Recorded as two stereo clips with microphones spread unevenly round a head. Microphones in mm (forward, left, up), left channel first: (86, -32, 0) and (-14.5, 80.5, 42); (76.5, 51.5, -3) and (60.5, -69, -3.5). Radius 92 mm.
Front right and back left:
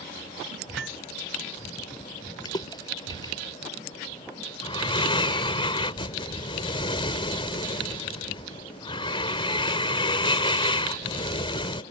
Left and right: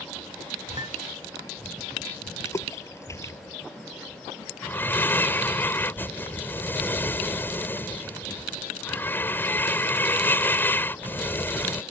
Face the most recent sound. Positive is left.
turn(degrees=10)